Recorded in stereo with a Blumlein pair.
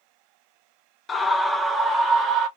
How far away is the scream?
About 0.6 m.